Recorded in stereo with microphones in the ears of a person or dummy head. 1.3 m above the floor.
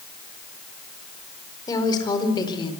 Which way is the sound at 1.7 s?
25° left (ahead or behind).